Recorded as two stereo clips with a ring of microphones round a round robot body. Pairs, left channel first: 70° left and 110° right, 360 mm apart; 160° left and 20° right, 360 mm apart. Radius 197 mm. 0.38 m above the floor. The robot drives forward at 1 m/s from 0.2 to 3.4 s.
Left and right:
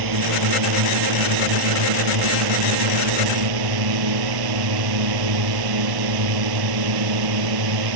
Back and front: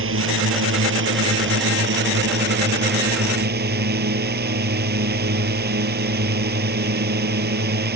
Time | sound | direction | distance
0.0 | a drone | 80° right | ?